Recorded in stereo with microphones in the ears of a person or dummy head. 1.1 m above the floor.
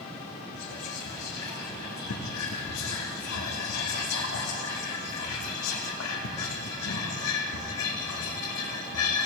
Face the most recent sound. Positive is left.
turn(degrees=75)  # may be behind; listen again after turning